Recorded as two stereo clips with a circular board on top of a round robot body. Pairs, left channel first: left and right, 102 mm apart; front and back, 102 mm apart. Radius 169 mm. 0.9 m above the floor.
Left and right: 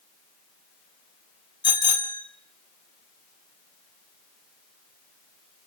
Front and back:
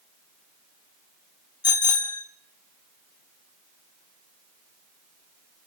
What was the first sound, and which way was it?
A bicycle bell, 50° left.